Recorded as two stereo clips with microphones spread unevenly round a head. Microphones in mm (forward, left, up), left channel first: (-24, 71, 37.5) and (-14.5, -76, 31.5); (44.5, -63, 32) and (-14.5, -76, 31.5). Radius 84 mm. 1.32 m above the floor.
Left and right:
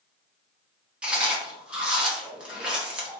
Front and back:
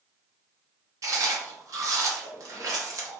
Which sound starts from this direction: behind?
Chewing, at 1.0 s.